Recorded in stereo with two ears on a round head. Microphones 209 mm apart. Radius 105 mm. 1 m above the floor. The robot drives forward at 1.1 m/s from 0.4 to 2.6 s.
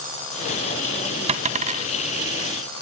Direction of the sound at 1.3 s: 30° right (ahead or behind).